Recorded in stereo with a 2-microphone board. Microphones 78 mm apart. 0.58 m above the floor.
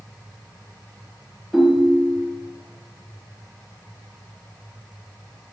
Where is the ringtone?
Centre (ahead or behind), 1.4 m.